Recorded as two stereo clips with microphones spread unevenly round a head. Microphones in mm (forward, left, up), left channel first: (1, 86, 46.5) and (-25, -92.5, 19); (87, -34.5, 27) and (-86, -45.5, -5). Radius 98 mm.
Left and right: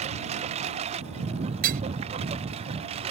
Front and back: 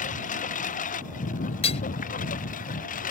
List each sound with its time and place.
0.0 s a lawn mower: 40° right
1.6 s hammering: 50° right